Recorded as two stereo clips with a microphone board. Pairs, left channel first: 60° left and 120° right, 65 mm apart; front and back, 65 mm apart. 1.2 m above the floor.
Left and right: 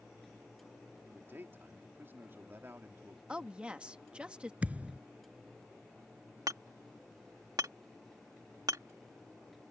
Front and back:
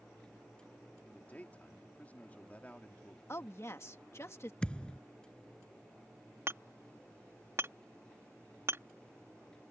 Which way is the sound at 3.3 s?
50° right.